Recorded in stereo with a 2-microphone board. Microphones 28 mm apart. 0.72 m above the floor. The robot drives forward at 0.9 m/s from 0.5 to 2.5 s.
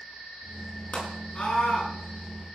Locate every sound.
0.9 s a scream: 60° left (ahead or behind), 7 m; by 1.9 s 65° left (ahead or behind), 7 m